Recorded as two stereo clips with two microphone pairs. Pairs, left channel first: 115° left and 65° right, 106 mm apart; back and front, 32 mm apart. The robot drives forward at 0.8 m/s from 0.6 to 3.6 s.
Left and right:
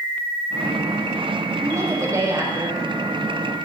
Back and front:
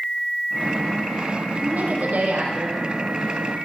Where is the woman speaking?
10° right, 6 m.